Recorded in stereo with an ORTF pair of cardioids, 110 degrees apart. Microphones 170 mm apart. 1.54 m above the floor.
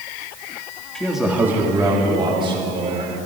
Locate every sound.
0.9 s a man speaking: 5° left, 2.5 m; by 3.1 s 35° right, 4.5 m